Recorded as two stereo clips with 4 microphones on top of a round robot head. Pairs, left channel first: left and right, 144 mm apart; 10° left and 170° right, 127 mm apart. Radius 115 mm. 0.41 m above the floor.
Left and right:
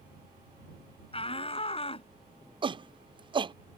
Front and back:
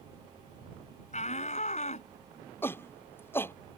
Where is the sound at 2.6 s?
55° right.